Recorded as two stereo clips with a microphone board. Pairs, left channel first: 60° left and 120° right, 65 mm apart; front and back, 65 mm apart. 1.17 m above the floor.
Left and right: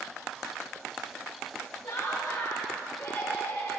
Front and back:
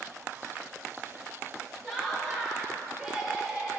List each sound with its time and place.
1.8 s laughter: 85° left, 2.5 m; by 3.8 s 105° left, 3 m